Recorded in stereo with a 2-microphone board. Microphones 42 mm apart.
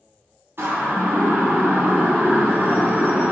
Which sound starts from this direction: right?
A siren, at 0.6 s.